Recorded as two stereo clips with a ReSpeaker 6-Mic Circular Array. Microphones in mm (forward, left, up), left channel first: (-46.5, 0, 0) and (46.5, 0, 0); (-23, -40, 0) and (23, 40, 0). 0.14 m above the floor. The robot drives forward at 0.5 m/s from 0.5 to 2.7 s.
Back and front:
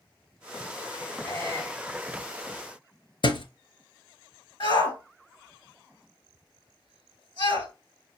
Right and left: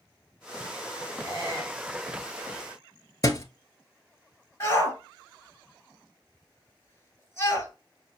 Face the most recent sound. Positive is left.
turn(degrees=-175)